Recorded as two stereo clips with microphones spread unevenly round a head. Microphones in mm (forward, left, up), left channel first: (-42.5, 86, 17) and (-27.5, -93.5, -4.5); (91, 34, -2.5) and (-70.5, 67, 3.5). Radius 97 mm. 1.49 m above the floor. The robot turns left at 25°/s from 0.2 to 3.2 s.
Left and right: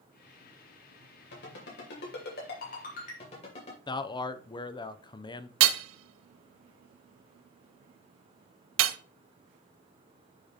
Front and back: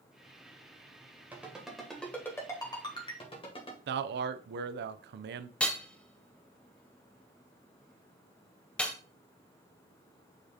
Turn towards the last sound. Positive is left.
turn(degrees=-95)